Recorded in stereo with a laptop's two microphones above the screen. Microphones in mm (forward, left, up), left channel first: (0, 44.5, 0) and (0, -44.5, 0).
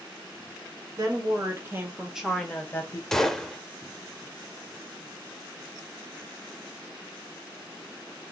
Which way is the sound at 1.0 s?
45° right (ahead or behind).